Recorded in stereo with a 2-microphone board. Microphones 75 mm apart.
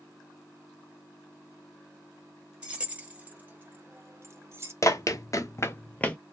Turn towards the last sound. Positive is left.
turn(degrees=15)  # may be behind; listen again after turning